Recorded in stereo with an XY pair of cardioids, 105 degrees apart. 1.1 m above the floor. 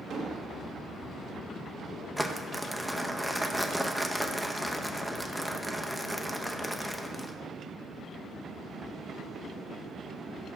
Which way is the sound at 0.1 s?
65° right.